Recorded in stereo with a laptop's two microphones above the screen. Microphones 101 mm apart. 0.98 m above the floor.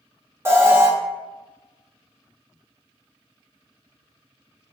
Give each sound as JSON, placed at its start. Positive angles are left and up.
{"t": 0.5, "sound": "an alarm", "side_deg": -25, "distance_m": 0.6}